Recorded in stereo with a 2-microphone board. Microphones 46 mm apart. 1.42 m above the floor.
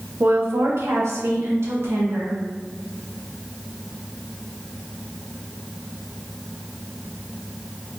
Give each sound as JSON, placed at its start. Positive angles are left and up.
{"t": 0.2, "sound": "a woman speaking", "side_deg": -55, "distance_m": 0.7}